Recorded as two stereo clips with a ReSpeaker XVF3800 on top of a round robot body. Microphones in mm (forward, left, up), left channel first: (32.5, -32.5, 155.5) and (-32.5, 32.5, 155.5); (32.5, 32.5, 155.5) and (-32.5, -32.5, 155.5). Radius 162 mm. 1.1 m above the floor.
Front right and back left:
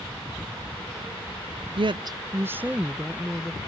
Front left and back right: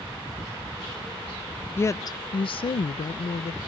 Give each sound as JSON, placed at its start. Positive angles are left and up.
{"t": 1.8, "sound": "a woman speaking", "azimuth_deg": 110}